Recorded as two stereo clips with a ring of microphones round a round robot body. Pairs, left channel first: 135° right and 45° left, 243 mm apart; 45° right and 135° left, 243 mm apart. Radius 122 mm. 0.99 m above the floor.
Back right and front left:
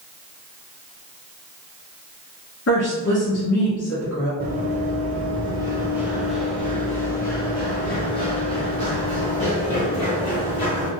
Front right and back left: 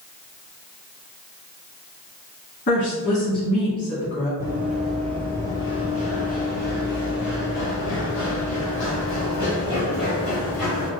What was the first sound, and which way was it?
A woman speaking, 90° right.